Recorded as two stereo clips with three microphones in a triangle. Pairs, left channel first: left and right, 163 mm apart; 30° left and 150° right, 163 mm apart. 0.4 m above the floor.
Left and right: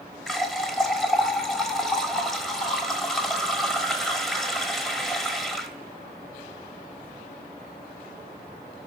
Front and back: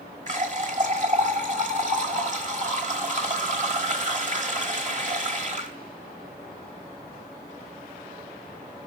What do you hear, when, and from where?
0.3 s a running tap: straight behind, 1.1 m